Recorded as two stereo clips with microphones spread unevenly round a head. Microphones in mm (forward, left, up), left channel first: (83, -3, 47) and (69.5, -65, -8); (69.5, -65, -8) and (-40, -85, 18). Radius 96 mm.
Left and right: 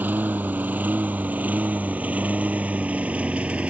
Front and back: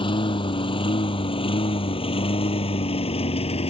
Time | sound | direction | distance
0.0 | a lawn mower | 35° right | ?